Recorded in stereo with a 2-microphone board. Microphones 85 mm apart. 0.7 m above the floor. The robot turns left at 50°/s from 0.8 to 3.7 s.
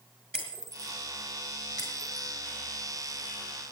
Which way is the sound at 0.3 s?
10° left (ahead or behind).